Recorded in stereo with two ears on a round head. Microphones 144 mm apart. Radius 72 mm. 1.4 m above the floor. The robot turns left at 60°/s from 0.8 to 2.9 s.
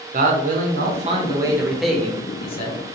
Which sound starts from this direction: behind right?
A man speaking, at 0.1 s.